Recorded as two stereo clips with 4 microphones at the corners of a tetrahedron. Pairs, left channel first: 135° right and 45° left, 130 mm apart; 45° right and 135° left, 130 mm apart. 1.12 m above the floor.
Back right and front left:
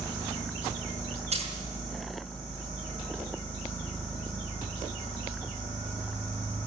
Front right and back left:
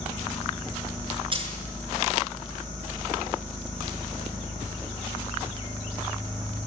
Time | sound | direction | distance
1.3 | a dropped coin | 85° left | 5.5 m